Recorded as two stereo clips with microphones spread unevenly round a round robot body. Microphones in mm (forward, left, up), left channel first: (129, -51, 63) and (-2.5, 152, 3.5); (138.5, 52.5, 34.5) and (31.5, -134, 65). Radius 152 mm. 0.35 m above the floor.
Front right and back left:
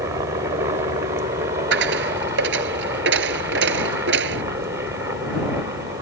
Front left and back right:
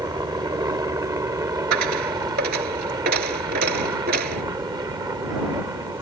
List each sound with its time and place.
0.0 s a helicopter: 165° left
1.7 s a dropped coin: straight behind